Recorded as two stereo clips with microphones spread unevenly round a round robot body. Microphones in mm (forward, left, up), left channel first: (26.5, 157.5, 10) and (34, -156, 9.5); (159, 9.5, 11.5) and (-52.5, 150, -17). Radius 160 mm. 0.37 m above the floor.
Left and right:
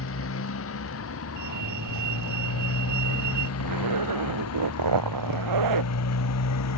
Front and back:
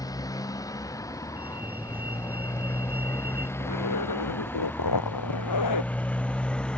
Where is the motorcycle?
45° left; by 6.8 s 55° left.